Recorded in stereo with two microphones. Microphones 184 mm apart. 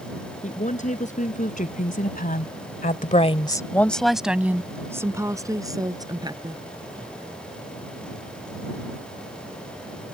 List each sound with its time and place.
0.4 s a woman speaking: 40° left (ahead or behind); by 6.6 s 20° right (ahead or behind)